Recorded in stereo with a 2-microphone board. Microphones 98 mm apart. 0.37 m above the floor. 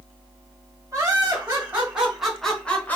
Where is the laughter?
30° right (ahead or behind), 2 m; by 3.0 s 20° left (ahead or behind), 1.6 m.